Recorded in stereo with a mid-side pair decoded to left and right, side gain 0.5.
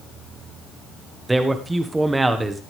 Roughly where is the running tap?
No running tap in this recording.